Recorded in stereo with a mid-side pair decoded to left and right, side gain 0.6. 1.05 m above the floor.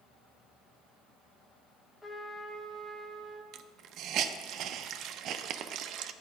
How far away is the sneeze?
No sneeze in this recording.